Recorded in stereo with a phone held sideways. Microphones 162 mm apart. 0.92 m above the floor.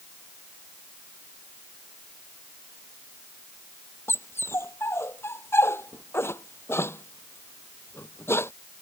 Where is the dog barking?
15° left (ahead or behind).